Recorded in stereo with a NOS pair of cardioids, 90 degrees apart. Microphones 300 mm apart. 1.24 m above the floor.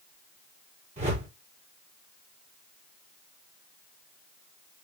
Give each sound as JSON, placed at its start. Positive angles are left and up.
{"t": 1.0, "sound": "a whoosh", "azimuth_deg": -20, "distance_m": 2.5}